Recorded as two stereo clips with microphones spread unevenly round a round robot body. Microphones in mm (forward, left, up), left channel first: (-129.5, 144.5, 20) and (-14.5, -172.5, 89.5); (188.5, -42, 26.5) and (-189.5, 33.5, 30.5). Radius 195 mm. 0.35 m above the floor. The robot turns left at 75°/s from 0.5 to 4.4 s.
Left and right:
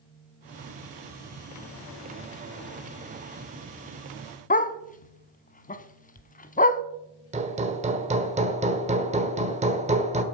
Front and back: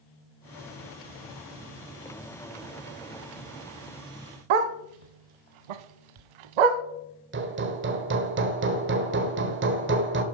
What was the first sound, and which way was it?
A dog barking, 175° left.